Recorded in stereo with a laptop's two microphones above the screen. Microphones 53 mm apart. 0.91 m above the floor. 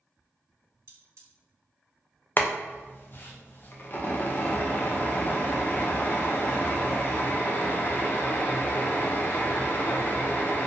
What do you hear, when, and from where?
0.9 s cutlery clinking: 60° right (ahead or behind), 1.0 m
2.4 s boiling: 40° left (ahead or behind), 0.5 m